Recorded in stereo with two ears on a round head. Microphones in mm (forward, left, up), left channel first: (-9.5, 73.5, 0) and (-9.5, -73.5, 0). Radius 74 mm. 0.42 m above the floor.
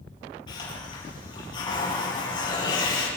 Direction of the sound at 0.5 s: 30° left (ahead or behind).